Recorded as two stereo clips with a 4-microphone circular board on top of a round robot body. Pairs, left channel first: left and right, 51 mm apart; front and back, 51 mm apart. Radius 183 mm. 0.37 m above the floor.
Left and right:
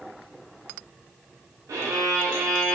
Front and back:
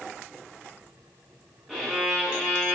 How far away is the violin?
About 0.6 m.